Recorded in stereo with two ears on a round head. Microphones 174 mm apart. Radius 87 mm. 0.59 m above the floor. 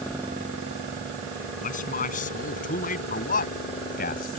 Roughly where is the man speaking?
Left.